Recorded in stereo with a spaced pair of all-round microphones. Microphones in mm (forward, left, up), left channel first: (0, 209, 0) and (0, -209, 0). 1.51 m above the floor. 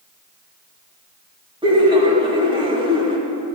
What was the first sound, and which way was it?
Laughter, 10° right (ahead or behind).